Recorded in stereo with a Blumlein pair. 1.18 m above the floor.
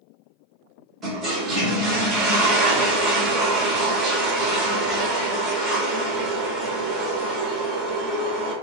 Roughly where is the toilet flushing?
Ahead.